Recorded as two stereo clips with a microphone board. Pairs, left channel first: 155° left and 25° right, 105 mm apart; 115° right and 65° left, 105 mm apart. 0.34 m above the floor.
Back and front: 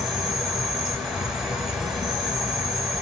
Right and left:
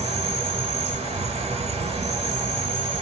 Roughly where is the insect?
Ahead left.